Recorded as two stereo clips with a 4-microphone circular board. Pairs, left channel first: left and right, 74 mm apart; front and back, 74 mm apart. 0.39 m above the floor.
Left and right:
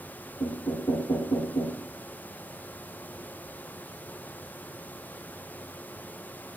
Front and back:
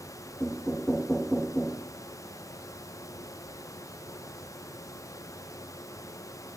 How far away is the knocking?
About 4.5 m.